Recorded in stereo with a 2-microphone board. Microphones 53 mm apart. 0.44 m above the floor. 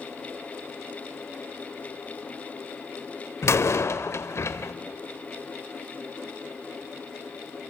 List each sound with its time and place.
3.4 s a door slam: 60° left (ahead or behind), 1.0 m